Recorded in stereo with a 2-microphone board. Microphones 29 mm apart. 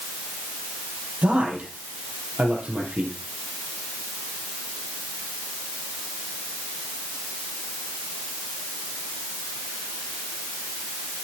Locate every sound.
1.2 s a man speaking: 50° right (ahead or behind), 4 m